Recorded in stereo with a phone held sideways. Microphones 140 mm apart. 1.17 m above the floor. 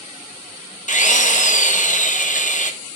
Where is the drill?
65° left (ahead or behind), 1.1 m.